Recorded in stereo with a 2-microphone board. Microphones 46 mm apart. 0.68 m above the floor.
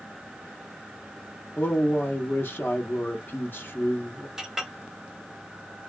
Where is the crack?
I don't hear a crack.